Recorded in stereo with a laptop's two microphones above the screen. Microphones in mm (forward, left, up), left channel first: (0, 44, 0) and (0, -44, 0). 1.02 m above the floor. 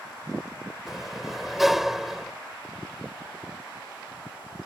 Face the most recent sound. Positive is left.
turn(degrees=0)  # may be behind; listen again after turning